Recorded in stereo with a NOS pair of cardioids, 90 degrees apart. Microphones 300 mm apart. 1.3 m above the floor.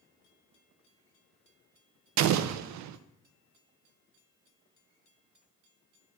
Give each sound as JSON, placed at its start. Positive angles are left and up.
{"t": 2.2, "sound": "an explosion", "azimuth_deg": -70, "distance_m": 0.5}